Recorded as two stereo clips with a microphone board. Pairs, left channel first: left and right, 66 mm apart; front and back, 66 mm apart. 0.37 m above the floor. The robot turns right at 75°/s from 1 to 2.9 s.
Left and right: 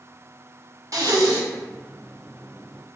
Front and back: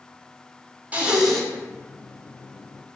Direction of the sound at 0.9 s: 110° right.